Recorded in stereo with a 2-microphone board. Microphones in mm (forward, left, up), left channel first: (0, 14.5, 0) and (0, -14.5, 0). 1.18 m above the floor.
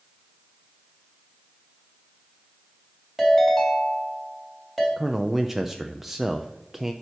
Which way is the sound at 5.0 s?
10° right (ahead or behind).